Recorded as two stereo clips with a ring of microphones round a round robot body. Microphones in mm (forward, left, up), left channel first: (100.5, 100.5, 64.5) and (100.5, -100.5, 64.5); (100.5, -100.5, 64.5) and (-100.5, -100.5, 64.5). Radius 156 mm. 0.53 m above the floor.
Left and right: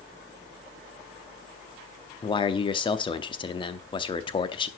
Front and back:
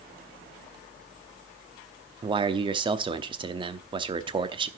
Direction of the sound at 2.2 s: 135° left.